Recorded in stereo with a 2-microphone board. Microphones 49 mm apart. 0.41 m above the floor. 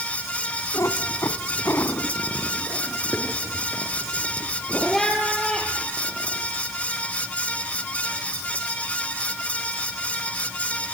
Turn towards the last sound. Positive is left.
turn(degrees=0)  # may be behind; listen again after turning